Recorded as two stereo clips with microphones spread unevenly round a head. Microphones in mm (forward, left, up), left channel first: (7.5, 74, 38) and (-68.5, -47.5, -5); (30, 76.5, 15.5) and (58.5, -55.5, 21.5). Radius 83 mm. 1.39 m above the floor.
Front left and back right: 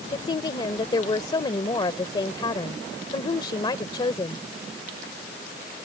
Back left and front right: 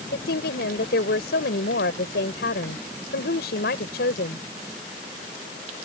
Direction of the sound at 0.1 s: 115° left.